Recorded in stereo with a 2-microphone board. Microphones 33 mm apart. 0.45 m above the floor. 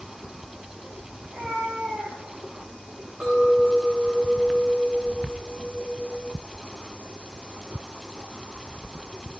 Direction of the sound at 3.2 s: 30° right (ahead or behind).